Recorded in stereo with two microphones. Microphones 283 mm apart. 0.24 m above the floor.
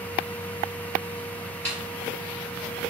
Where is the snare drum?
60° right (ahead or behind), 1.5 m.